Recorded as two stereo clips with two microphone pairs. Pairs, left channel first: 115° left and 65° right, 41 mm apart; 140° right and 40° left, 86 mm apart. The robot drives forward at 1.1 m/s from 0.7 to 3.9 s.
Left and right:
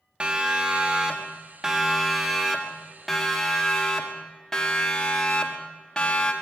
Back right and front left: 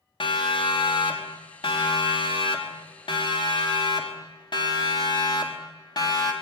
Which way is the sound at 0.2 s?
130° right.